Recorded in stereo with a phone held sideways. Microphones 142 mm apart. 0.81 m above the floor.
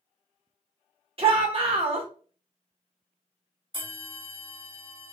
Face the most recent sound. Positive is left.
turn(degrees=-40)  # may be behind; listen again after turning